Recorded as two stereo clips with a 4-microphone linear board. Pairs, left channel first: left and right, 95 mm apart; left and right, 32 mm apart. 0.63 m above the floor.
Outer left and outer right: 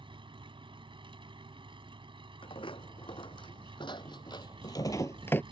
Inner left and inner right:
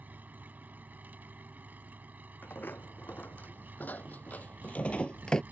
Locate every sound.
0.0 s an engine running: 65° right (ahead or behind)
2.4 s footsteps: 70° left (ahead or behind); by 5.4 s 20° left (ahead or behind)